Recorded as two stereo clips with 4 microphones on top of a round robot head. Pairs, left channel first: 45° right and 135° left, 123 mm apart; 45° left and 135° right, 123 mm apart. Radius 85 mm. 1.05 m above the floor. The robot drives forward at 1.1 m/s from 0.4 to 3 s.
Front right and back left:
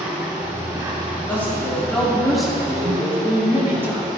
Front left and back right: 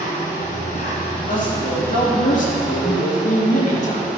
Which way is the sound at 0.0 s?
60° left.